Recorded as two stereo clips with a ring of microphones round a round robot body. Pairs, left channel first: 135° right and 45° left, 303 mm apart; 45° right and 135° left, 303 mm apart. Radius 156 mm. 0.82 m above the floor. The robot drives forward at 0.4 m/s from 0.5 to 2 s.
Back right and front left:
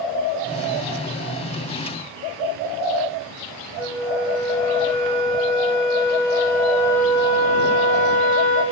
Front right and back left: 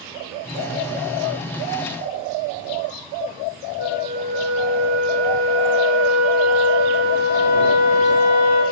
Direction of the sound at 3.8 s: 130° left.